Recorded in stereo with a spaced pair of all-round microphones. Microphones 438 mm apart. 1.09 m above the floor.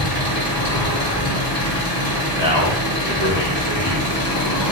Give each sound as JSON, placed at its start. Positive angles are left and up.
{"t": 0.0, "sound": "an engine running", "side_deg": 55, "distance_m": 3.0}
{"t": 2.4, "sound": "a man speaking", "side_deg": 70, "distance_m": 3.0}